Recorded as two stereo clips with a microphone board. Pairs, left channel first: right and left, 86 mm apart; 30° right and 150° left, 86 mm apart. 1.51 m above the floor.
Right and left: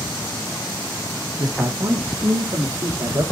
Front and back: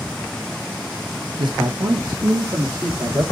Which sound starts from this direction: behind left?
A man speaking, at 1.4 s.